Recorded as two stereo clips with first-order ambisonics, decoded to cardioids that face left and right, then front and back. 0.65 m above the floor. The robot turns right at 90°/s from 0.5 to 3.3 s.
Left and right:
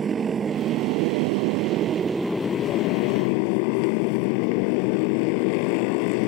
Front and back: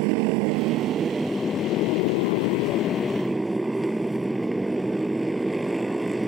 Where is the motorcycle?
160° right; by 6.3 s 95° left.